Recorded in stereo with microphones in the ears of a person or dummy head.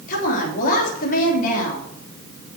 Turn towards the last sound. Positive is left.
turn(degrees=55)  # may be behind; listen again after turning